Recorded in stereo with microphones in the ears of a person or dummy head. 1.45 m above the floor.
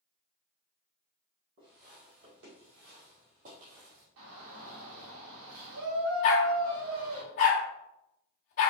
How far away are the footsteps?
About 2.5 m.